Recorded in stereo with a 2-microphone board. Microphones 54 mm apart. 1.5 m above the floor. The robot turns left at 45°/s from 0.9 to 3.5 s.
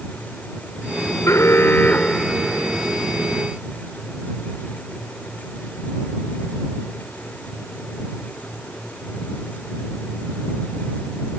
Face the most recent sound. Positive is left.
turn(degrees=-40)